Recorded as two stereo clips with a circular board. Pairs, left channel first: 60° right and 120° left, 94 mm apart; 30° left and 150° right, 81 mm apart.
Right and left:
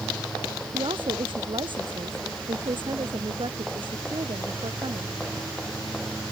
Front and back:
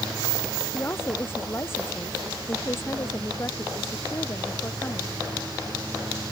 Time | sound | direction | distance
0.7 | a woman speaking | 90° left | ?